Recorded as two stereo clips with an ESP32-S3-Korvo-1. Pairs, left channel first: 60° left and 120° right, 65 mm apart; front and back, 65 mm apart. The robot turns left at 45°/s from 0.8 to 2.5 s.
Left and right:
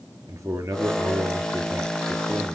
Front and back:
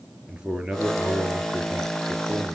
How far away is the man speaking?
About 2.5 m.